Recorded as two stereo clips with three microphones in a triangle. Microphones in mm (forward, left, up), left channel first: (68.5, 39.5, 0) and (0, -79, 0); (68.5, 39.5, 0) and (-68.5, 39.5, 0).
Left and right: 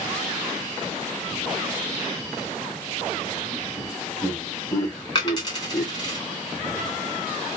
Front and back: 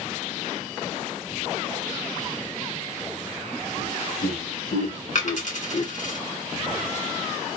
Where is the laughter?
5° right, 2.5 m; by 5.9 s 25° right, 0.9 m.